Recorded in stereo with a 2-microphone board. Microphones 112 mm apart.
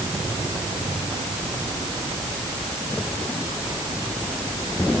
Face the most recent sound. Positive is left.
No sound to turn to.